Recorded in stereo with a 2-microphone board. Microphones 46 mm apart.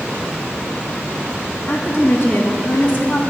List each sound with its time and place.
1.7 s a woman speaking: 60° left (ahead or behind), 2.5 m; by 3.2 s 40° left (ahead or behind), 2 m